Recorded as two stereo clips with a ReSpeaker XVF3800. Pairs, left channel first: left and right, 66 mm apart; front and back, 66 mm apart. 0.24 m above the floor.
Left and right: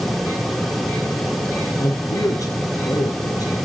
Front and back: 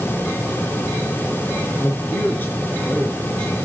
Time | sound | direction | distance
1.8 | a man speaking | 55° left | 3 m